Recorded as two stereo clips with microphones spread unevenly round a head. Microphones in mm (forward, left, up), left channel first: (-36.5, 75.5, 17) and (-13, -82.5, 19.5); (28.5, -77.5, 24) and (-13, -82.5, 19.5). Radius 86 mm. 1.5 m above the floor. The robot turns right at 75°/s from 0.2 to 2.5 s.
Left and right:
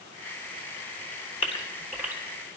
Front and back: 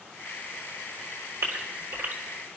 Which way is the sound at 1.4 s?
150° left.